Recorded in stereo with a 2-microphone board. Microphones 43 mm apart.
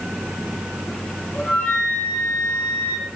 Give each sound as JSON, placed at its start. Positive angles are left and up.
{"t": 1.3, "sound": "a flute", "side_deg": 40, "distance_m": 6.0}